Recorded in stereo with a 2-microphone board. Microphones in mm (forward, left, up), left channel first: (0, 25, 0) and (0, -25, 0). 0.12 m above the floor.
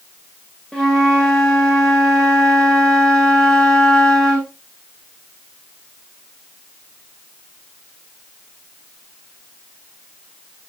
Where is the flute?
5° left (ahead or behind), 6.5 m.